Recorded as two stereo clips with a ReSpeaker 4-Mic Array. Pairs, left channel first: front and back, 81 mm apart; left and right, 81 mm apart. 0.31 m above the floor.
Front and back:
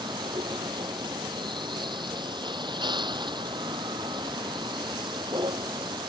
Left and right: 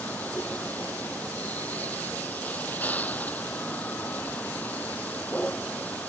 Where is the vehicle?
160° left.